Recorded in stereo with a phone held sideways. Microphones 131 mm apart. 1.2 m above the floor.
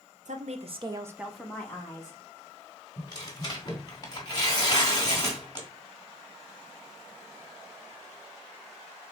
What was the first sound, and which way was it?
A woman speaking, 70° right (ahead or behind).